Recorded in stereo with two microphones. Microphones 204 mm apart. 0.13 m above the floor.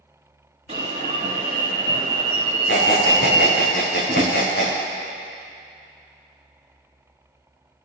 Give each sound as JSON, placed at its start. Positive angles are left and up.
{"t": 0.7, "sound": "an alarm", "side_deg": -35, "distance_m": 2.5}
{"t": 2.7, "sound": "a squeak", "side_deg": 60, "distance_m": 3.5}
{"t": 4.1, "sound": "a drawer", "side_deg": -20, "distance_m": 2.5}